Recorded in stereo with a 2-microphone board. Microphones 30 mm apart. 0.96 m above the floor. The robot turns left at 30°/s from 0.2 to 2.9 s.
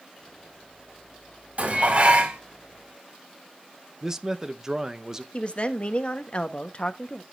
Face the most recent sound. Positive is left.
turn(degrees=40)  # may be behind; listen again after turning